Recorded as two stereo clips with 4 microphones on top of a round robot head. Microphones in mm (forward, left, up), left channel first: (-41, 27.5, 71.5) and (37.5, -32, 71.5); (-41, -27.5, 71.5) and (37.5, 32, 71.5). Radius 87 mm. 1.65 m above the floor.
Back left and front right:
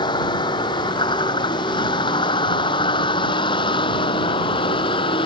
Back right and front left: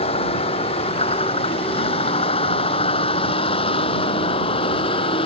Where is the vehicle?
170° right; by 5.2 s straight behind.